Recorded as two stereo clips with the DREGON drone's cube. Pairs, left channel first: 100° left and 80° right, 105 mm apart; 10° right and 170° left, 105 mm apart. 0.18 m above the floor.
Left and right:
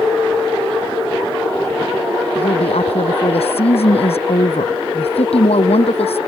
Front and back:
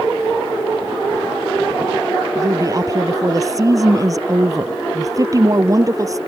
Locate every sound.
2.4 s a woman speaking: 115° left